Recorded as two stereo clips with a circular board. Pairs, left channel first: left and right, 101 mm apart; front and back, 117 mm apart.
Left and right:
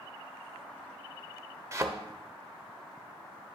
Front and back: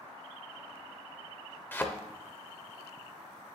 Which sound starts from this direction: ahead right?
A thud, at 1.7 s.